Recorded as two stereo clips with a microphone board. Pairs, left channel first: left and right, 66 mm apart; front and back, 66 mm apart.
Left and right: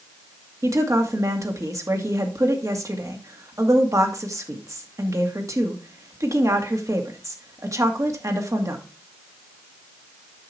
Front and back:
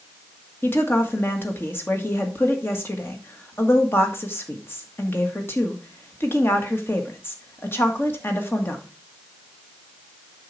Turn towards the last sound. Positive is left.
turn(degrees=-55)